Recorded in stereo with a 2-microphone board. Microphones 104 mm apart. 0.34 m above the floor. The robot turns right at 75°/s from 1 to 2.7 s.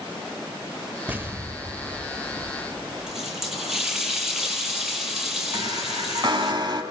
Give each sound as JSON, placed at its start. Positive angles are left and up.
{"t": 1.1, "sound": "an explosion", "azimuth_deg": -150, "distance_m": 0.9}
{"t": 3.1, "sound": "a running tap", "side_deg": -5, "distance_m": 7.0}
{"t": 5.5, "sound": "a chime", "side_deg": -45, "distance_m": 3.0}